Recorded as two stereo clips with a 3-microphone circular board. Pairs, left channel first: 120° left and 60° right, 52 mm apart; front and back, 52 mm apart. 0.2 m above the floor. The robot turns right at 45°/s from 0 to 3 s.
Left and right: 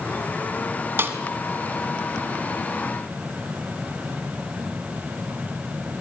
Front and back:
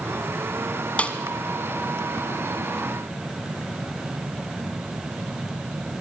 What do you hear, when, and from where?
1.0 s a snare drum: 55° right, 1.5 m; by 1.2 s 45° right, 1.5 m